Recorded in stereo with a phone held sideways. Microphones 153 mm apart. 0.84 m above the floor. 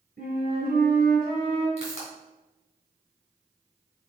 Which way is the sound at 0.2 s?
80° right.